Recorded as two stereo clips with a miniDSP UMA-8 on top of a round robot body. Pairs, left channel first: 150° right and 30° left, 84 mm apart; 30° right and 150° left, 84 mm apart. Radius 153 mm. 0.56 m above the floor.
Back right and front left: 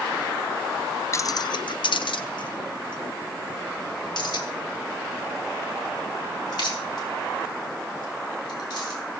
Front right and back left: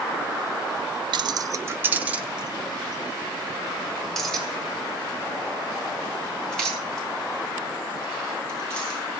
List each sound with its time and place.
1.1 s keys jangling: 160° left, 0.7 m; by 9.0 s 110° right, 8 m